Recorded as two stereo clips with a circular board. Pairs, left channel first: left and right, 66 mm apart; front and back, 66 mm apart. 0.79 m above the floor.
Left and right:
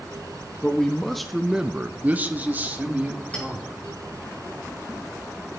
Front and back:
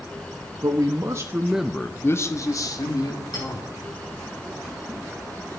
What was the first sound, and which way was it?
A man speaking, 170° left.